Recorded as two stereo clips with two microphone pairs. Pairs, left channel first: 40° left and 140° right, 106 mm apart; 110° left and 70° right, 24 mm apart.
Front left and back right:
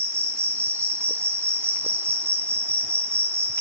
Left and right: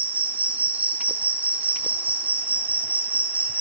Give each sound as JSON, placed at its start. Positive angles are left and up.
{"t": 0.0, "sound": "an insect", "azimuth_deg": -75, "distance_m": 3.5}